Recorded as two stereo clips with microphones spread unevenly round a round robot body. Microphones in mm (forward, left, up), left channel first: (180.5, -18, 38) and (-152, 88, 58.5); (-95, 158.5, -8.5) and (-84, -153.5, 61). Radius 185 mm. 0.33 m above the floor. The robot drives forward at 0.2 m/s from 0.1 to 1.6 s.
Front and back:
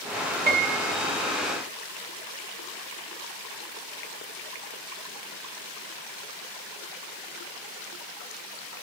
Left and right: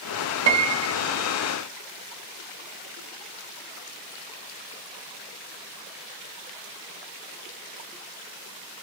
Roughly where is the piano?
Behind right.